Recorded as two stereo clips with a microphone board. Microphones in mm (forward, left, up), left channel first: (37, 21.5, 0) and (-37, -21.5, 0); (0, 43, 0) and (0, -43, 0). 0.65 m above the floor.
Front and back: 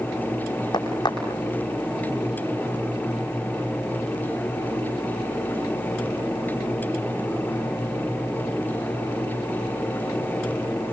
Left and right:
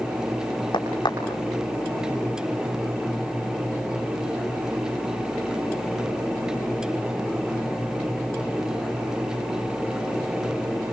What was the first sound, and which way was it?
A crack, 60° left.